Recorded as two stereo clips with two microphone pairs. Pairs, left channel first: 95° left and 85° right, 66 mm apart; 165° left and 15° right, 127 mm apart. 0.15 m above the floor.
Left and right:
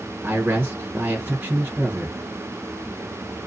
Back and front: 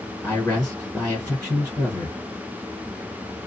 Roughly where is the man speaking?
Behind right.